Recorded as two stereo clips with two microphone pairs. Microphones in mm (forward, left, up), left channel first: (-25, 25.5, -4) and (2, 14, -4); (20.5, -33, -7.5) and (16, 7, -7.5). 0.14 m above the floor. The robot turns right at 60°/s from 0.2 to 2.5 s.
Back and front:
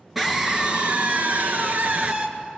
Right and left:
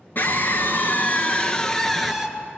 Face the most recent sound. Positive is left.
turn(degrees=35)